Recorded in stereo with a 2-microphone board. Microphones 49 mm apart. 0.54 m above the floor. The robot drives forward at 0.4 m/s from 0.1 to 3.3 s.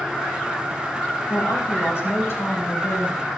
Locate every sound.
1.3 s a woman speaking: 75° left (ahead or behind), 4.5 m; by 3.2 s 70° left (ahead or behind), 4.5 m